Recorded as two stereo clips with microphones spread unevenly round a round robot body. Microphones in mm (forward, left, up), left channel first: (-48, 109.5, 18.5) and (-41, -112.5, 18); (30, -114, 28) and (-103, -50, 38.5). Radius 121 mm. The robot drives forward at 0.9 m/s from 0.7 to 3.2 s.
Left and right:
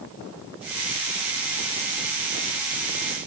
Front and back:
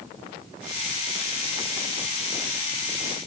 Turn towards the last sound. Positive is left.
No sound to turn to.